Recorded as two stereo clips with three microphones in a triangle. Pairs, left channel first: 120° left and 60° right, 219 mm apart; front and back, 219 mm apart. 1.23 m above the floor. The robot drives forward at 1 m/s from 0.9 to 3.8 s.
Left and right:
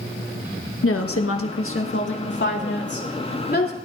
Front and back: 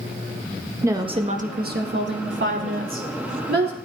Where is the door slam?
No door slam in this recording.